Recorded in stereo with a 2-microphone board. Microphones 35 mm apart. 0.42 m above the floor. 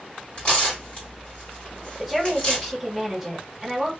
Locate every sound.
0.4 s tearing paper: 35° left (ahead or behind), 1.8 m
2.0 s a woman speaking: centre (ahead or behind), 1.4 m